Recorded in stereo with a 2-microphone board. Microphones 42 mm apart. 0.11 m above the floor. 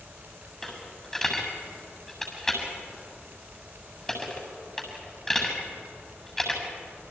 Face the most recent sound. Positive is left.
turn(degrees=10)  # may be behind; listen again after turning